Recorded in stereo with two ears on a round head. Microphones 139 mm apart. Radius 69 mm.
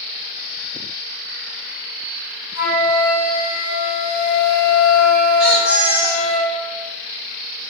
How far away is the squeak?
About 1.4 m.